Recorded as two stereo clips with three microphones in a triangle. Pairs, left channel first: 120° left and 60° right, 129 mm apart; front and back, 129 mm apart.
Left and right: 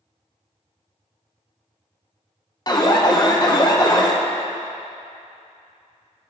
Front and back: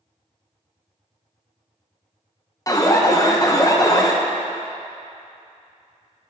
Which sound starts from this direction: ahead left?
An alarm, at 2.7 s.